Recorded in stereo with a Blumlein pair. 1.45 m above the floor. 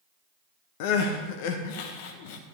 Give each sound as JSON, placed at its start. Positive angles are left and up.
{"t": 0.8, "sound": "crying", "azimuth_deg": 45, "distance_m": 1.2}